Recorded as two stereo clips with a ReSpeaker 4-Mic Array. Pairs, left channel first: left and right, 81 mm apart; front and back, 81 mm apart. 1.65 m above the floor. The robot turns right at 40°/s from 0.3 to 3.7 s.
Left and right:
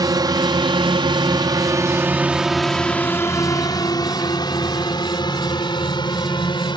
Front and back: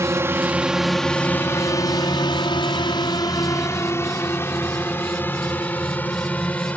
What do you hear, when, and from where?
0.0 s a drone: 125° right; by 6.8 s 70° left